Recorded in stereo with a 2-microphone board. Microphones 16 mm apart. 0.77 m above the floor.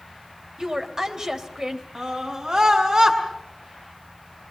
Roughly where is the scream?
Right.